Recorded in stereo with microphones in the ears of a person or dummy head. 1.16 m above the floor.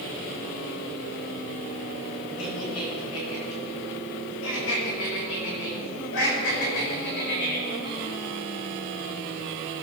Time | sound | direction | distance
2.4 | laughter | 80° left | 7.5 m